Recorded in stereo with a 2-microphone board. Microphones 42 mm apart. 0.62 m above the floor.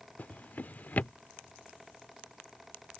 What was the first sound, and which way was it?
A drawer, 40° left (ahead or behind).